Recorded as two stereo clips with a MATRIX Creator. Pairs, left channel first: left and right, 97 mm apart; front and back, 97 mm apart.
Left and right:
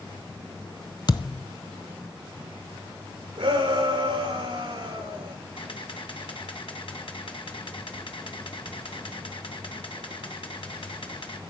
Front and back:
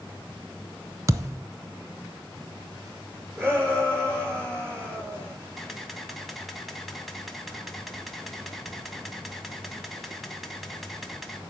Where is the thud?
125° left, 0.7 m.